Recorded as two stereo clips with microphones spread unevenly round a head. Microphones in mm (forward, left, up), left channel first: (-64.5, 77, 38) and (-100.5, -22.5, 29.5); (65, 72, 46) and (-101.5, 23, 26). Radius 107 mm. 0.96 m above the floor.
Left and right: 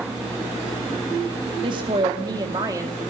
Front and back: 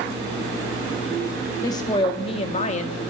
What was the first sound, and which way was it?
A woman speaking, 60° right.